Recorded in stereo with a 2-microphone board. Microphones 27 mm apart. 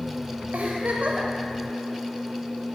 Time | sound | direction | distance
0.5 | a giggle | 60° right (ahead or behind) | 0.9 m